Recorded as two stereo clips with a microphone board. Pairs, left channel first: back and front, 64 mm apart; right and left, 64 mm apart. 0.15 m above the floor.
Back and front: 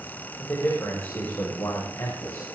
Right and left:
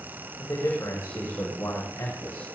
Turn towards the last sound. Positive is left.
turn(degrees=-145)